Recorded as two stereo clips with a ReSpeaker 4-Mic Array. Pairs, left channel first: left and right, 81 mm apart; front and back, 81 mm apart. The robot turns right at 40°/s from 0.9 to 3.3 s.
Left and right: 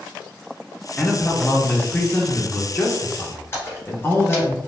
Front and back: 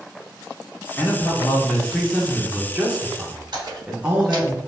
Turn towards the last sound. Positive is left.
turn(degrees=150)